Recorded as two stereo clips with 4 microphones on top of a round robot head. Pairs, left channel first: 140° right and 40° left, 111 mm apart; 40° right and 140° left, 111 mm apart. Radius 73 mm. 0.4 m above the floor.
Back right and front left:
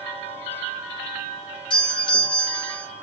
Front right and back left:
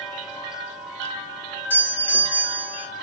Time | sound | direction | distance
1.7 | a doorbell | 110° right | 2.5 m